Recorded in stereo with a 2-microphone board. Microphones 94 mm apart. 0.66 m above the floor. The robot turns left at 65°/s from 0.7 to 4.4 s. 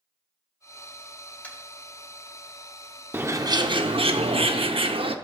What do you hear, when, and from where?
1.4 s tapping: 15° left (ahead or behind), 2.5 m; by 1.6 s 10° left (ahead or behind), 2.5 m
3.1 s a bird: 20° right, 0.6 m; by 5.2 s 105° right, 0.6 m